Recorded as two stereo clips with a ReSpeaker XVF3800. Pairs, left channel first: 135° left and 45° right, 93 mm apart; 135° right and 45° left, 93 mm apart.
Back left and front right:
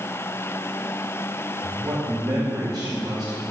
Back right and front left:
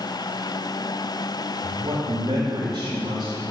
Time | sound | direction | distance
1.6 | a man speaking | 10° left | 4 m